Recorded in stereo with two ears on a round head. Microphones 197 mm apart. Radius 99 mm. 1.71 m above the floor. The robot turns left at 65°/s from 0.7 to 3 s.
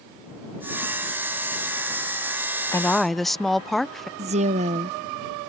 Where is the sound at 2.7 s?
15° left (ahead or behind); by 4.1 s centre (ahead or behind).